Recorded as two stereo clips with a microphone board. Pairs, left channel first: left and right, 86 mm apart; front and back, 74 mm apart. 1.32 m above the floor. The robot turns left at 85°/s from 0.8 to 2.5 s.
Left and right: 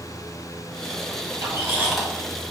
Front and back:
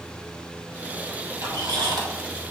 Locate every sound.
1.4 s a squeak: 130° right, 1.0 m; by 2.1 s 175° left, 1.0 m